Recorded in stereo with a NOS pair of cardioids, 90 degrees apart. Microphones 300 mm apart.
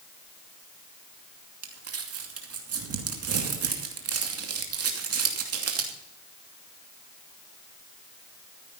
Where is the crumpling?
55° right, 2.5 m.